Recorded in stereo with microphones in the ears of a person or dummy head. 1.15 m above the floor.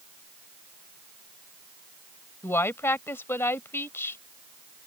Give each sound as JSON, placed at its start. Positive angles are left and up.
{"t": 2.4, "sound": "a woman speaking", "side_deg": 10}